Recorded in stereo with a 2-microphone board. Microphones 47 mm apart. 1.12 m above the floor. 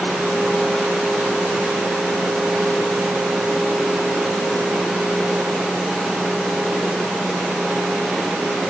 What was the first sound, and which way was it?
Only background noise.